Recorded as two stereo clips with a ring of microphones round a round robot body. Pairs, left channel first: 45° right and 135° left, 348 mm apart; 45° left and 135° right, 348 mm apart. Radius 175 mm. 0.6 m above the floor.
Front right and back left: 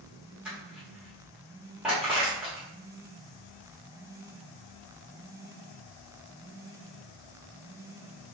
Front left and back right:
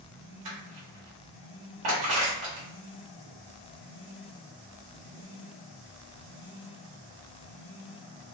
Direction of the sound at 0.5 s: 135° right.